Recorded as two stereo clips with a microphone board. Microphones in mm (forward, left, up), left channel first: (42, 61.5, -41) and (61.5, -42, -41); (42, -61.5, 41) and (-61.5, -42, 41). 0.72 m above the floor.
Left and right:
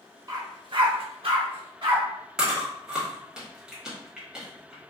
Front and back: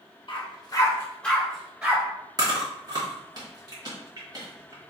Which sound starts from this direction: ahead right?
A dog barking, at 0.3 s.